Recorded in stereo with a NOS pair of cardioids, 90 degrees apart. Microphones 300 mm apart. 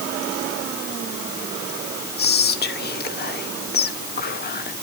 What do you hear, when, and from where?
2.2 s whispering: 30° left, 0.9 m